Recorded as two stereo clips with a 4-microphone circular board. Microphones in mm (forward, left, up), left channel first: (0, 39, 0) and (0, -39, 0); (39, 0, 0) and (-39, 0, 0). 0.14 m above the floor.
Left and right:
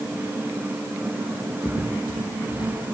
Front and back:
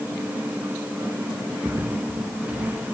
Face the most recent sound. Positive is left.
turn(degrees=100)